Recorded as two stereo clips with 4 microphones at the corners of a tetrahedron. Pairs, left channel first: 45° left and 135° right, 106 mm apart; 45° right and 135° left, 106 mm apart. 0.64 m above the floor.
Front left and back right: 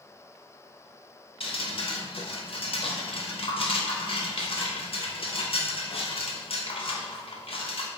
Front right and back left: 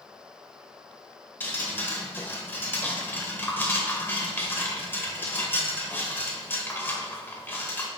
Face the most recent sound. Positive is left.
turn(degrees=25)